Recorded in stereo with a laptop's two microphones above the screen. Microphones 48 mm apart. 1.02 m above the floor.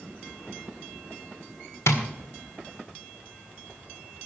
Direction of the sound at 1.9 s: 75° left (ahead or behind).